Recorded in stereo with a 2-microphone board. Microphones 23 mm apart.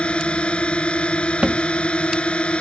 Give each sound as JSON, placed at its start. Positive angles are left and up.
{"t": 0.0, "sound": "a drone", "side_deg": 55}
{"t": 1.4, "sound": "a thud", "side_deg": -55}